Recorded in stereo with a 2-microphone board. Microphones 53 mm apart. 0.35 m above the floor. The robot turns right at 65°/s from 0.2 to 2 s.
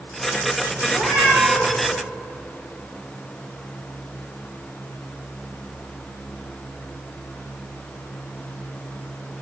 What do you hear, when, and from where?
0.9 s a cat meowing: 140° right, 9.5 m; by 1.8 s 80° right, 9.5 m